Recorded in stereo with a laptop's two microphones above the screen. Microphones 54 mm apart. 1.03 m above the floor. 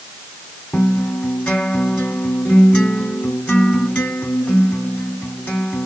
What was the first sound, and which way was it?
A guitar, 20° left (ahead or behind).